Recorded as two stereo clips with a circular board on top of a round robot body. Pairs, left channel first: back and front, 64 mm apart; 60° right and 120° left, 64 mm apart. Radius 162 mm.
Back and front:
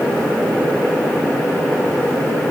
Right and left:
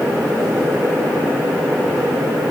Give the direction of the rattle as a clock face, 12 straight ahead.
I don't hear a rattle.